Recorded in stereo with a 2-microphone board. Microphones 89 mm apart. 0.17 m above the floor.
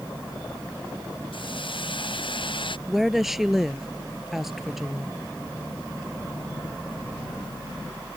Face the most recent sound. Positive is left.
turn(degrees=-5)  # may be behind; listen again after turning